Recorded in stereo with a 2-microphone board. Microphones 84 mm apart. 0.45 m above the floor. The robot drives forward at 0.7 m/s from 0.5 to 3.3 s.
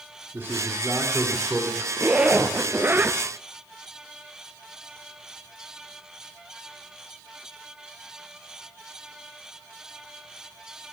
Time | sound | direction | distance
0.3 | a man speaking | 25° right (ahead or behind) | 3.5 m
2.0 | a zipper | 15° right (ahead or behind) | 1.9 m